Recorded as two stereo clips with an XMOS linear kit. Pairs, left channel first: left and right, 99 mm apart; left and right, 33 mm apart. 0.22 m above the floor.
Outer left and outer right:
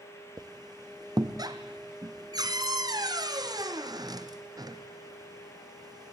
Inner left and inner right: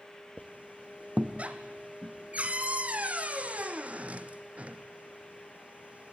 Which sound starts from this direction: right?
A squeak, at 0.4 s.